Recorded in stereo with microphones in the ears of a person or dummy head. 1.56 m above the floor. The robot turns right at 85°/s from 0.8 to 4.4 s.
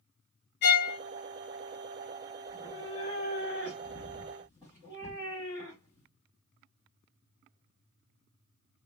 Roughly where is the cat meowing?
Ahead.